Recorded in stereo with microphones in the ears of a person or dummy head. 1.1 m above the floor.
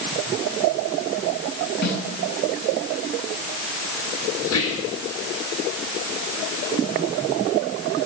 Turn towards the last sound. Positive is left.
turn(degrees=75)  # may be behind; listen again after turning